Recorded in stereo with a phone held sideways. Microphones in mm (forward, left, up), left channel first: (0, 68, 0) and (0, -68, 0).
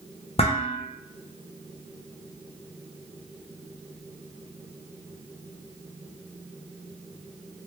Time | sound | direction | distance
0.4 | dishes clattering | 45° left (ahead or behind) | 0.5 m